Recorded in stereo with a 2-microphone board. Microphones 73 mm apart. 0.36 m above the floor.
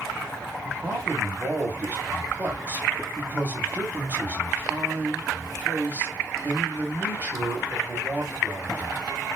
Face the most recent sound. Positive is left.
turn(degrees=-25)  # may be behind; listen again after turning